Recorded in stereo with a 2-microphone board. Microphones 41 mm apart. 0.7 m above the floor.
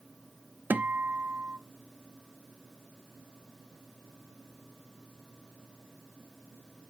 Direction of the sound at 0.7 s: 55° right (ahead or behind).